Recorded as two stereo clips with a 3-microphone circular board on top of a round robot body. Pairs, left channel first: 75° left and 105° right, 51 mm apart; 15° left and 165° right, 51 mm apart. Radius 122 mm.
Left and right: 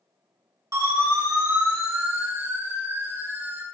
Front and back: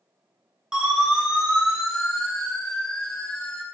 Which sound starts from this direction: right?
A siren, at 0.7 s.